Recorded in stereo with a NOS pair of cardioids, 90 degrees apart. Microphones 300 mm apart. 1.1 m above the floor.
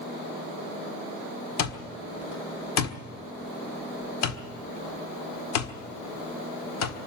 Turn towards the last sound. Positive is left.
turn(degrees=65)